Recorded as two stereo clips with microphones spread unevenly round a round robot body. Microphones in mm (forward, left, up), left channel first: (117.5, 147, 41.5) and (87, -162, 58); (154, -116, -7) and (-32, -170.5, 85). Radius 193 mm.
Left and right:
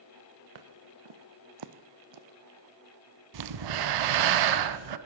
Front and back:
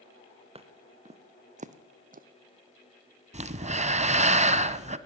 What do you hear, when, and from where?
0.6 s footsteps: 105° right, 2 m; by 2.3 s 130° right, 1.1 m
3.3 s breathing: 100° right, 1.3 m